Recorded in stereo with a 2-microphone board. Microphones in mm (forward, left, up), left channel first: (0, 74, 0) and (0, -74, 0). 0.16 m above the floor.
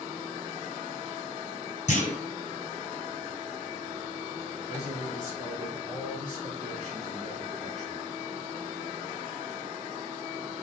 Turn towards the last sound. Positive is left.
turn(degrees=-50)  # may be behind; listen again after turning